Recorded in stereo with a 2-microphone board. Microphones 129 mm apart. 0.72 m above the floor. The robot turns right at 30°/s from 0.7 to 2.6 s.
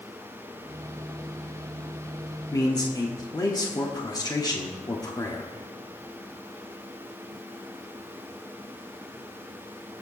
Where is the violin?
I don't hear a violin.